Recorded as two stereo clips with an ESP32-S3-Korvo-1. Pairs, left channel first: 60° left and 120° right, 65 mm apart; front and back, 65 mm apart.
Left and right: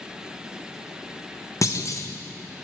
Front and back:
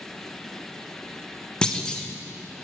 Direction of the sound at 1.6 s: 75° left.